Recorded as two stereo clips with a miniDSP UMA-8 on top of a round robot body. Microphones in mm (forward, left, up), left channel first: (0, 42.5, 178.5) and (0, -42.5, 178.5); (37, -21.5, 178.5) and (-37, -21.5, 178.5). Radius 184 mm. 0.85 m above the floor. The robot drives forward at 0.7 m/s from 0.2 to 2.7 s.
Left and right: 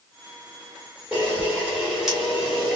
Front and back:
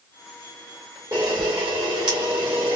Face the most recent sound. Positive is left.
turn(degrees=-175)